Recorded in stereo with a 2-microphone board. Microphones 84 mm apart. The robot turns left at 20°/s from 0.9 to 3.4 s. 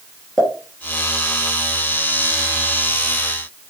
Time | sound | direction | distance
0.4 | a pop | centre (ahead or behind) | 2.5 m